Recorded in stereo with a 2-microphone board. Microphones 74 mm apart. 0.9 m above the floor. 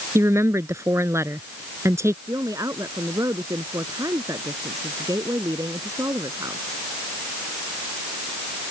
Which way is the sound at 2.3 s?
50° right (ahead or behind).